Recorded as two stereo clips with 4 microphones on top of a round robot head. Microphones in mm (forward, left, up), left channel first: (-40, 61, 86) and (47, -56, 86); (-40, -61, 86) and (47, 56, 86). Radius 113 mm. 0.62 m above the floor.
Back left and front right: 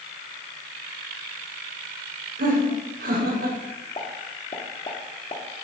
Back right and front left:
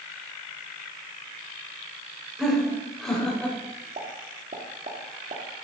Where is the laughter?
35° right, 4 m; by 3.6 s 45° right, 4 m.